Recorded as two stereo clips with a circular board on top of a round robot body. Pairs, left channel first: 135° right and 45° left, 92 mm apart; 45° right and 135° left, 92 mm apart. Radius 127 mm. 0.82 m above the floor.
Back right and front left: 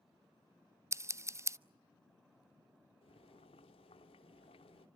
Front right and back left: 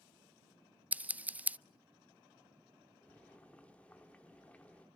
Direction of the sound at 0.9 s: 75° left.